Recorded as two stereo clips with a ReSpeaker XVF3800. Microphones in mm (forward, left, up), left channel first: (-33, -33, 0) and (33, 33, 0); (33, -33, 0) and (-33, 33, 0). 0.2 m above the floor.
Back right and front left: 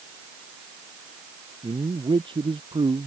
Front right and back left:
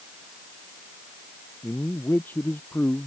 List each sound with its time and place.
1.6 s a man speaking: 20° left; by 3.1 s 25° left